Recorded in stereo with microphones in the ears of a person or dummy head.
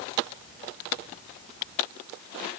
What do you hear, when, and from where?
Only background noise.